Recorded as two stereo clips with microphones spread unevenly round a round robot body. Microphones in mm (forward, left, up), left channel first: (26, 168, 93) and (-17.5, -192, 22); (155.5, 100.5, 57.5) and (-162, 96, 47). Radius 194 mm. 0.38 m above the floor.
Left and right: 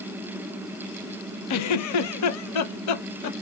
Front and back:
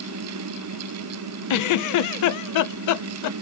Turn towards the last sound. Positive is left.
turn(degrees=35)